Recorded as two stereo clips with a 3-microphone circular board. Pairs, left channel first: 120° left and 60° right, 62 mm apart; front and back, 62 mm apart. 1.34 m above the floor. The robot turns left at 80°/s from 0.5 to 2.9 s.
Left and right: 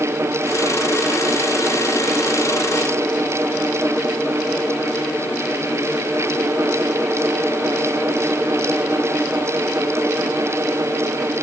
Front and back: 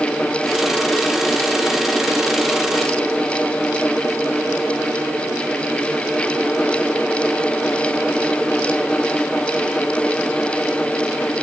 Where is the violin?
I don't hear a violin.